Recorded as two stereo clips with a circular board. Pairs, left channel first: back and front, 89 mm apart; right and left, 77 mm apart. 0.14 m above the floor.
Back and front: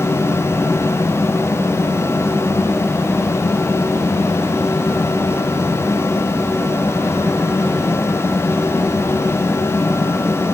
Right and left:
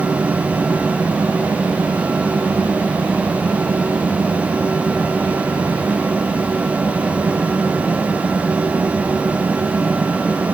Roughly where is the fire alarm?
No fire alarm in this recording.